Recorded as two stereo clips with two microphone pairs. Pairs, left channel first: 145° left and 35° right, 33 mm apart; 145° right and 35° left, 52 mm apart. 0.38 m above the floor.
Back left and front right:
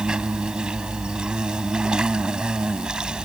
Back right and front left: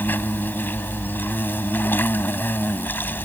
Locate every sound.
0.0 s an insect: 100° right